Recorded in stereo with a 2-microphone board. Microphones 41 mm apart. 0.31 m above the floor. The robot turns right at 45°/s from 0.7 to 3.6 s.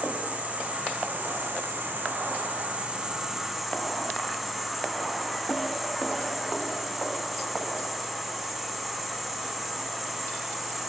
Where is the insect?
130° right, 2 m; by 10.9 s straight ahead, 2 m.